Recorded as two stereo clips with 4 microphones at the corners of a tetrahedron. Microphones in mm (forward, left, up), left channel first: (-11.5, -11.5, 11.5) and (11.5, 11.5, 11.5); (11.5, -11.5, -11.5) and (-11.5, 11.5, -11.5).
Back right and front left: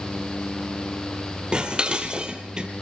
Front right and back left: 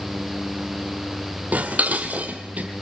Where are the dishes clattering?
105° left, 2 m.